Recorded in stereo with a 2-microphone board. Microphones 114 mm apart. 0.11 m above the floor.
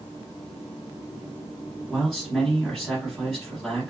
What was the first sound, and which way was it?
A man speaking, centre (ahead or behind).